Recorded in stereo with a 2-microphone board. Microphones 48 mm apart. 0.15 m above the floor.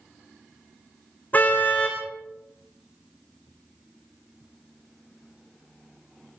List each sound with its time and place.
1.3 s a car horn: 40° left (ahead or behind), 4.5 m